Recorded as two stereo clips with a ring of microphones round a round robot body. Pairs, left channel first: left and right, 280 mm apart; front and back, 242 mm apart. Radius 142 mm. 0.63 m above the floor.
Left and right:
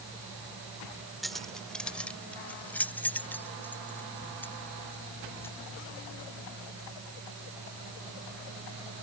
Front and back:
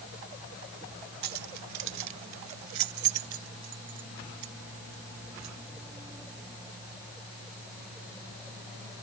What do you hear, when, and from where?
1.2 s keys jangling: straight behind; by 5.5 s 175° left